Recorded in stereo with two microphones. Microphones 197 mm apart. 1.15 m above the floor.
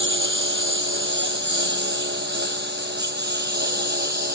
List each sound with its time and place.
0.0 s a lawn mower: 70° right (ahead or behind); by 4.4 s 55° right (ahead or behind)